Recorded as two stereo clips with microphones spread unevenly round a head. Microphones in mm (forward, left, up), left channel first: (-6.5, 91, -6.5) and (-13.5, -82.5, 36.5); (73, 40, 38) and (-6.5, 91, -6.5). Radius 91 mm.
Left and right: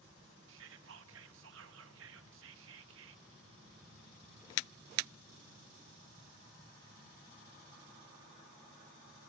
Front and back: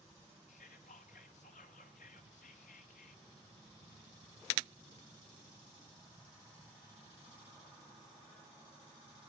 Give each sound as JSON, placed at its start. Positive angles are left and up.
{"t": 0.5, "sound": "whispering", "azimuth_deg": -70, "distance_m": 1.6}